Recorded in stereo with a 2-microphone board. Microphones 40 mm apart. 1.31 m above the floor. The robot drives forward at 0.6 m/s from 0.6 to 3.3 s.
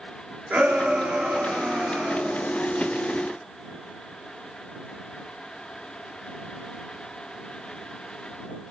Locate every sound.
0.5 s a shout: 45° right (ahead or behind), 3 m; by 2.5 s 35° right (ahead or behind), 3.5 m